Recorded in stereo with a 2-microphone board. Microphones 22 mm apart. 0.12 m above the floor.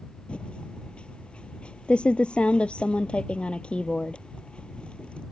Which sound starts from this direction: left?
Typing on a keyboard, at 0.3 s.